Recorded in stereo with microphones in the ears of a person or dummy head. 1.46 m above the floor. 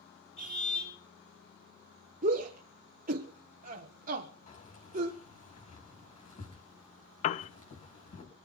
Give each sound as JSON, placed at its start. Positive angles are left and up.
{"t": 0.4, "sound": "a car horn", "side_deg": 45, "distance_m": 7.5}
{"t": 2.2, "sound": "a shout", "side_deg": -40, "distance_m": 1.3}
{"t": 4.5, "sound": "keys jangling", "side_deg": 40, "distance_m": 6.0}
{"t": 7.2, "sound": "a piano", "side_deg": 40, "distance_m": 0.6}